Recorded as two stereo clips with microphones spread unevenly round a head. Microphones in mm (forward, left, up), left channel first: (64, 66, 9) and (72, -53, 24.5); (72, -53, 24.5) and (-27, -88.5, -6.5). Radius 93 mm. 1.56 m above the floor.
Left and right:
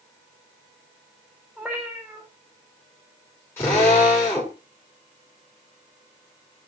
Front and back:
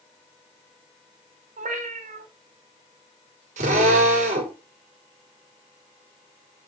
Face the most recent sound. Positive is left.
turn(degrees=170)